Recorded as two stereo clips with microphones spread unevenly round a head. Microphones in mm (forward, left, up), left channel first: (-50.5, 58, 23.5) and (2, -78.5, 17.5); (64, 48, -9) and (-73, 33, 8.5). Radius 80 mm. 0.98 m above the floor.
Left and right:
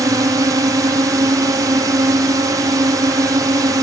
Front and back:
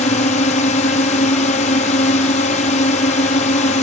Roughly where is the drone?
Ahead.